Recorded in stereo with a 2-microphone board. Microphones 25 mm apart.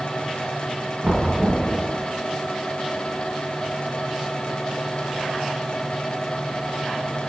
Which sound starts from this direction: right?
Knocking, at 1.0 s.